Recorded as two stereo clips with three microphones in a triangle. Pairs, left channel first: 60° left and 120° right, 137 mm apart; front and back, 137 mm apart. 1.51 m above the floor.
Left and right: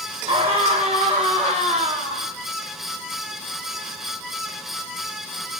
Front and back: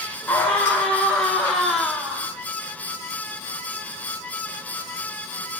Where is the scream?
75° right, 6 m; by 2.3 s 95° right, 5 m.